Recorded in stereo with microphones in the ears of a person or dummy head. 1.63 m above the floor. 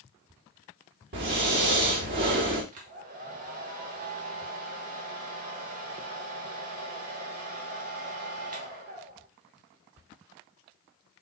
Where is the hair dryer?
45° right (ahead or behind), 1.3 m.